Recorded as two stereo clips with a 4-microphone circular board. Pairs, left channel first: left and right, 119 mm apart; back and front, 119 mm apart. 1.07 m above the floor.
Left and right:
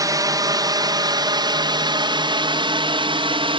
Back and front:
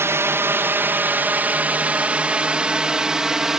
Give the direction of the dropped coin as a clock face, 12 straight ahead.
I don't hear a dropped coin.